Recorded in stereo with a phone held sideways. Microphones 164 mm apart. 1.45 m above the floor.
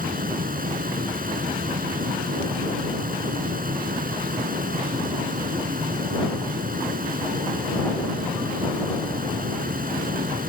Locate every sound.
0.0 s a fan: 60° right (ahead or behind)